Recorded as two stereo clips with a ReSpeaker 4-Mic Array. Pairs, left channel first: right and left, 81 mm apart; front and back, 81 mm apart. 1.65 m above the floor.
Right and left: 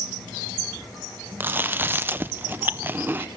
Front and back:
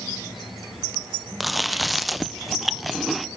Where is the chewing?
90° left, 0.5 m.